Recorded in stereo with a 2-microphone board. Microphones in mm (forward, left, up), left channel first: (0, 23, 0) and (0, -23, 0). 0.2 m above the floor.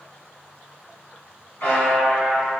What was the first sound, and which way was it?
A buzzer, 50° left (ahead or behind).